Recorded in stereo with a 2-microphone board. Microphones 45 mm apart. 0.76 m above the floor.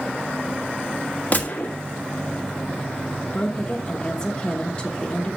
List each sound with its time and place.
1.3 s a gunshot: 35° left (ahead or behind), 1.4 m
3.3 s a woman speaking: 20° left (ahead or behind), 1.0 m